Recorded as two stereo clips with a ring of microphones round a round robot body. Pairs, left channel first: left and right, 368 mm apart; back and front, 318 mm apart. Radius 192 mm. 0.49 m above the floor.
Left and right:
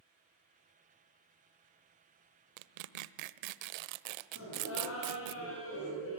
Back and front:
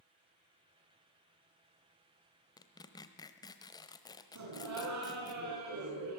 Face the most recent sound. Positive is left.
turn(degrees=35)